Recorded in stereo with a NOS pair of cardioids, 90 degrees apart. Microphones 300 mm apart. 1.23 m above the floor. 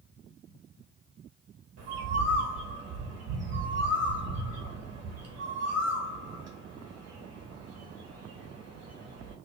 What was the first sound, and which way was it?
A bird, 60° right.